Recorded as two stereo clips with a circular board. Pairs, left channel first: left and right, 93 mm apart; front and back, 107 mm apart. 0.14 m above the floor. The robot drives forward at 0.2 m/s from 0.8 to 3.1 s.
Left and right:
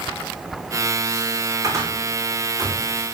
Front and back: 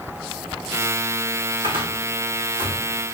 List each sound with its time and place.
1.6 s a cupboard door: 145° right, 3 m; by 2.8 s 150° right, 3 m